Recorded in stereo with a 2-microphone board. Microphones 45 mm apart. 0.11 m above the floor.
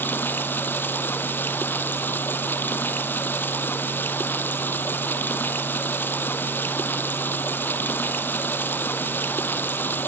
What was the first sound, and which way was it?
Running water, 50° left (ahead or behind).